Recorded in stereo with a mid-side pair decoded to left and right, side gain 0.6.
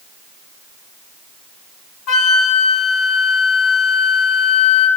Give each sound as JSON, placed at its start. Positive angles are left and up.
{"t": 2.1, "sound": "a flute", "azimuth_deg": 60, "distance_m": 1.1}